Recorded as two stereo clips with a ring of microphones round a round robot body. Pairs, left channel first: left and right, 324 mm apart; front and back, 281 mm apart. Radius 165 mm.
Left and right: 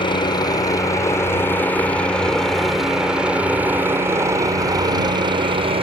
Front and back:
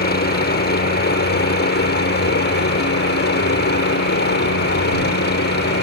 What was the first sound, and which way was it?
A helicopter, 25° left.